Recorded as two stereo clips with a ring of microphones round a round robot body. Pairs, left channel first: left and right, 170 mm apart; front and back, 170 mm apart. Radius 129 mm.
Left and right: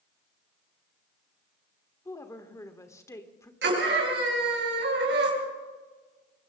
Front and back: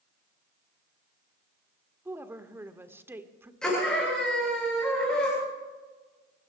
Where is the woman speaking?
130° left, 1.4 m.